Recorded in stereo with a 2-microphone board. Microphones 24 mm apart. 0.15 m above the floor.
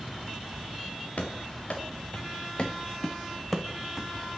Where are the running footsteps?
75° left (ahead or behind), 1.4 m; by 4.1 s 5° right (ahead or behind), 0.8 m.